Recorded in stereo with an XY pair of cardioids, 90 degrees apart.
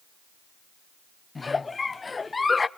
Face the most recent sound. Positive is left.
turn(degrees=30)